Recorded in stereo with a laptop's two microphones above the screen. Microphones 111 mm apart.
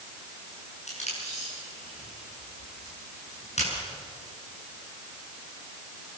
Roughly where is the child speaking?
I don't hear a child speaking.